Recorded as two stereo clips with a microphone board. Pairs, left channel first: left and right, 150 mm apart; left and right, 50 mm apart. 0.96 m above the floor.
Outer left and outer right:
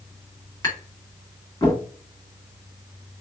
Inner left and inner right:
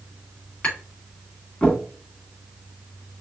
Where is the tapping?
25° left (ahead or behind), 2.0 m.